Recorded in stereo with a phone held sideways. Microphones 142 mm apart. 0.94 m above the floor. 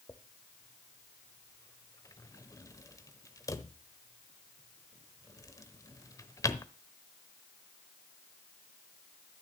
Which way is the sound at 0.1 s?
25° left (ahead or behind).